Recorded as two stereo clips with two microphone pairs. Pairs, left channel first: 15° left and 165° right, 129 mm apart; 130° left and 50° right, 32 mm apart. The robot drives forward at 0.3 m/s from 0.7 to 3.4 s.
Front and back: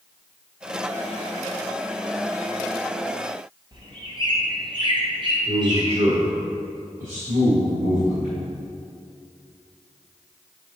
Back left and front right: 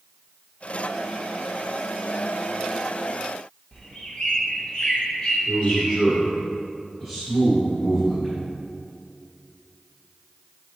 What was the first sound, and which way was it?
A bird, 175° left.